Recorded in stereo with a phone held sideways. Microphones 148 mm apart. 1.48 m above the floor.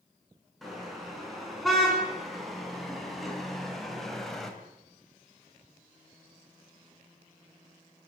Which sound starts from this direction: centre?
A car horn, at 0.6 s.